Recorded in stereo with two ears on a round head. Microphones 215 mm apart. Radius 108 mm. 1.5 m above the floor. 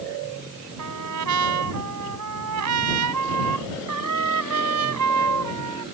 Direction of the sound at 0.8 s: 80° right.